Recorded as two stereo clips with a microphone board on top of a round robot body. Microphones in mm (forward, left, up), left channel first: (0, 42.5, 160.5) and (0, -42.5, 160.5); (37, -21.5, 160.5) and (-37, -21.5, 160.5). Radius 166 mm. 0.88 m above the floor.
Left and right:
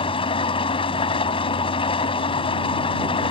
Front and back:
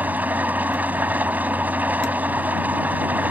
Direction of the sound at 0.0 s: 110° left.